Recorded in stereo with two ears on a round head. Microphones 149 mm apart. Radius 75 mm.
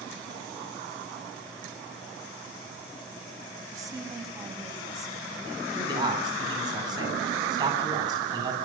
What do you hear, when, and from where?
3.7 s a woman speaking: 20° right (ahead or behind), 5.5 m
5.8 s a man speaking: 25° right (ahead or behind), 8 m